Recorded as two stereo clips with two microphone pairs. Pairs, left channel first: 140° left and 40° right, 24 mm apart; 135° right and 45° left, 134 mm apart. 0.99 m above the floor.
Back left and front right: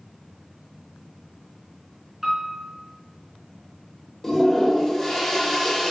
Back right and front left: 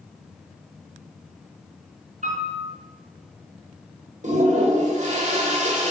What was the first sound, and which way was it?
A piano, 35° left.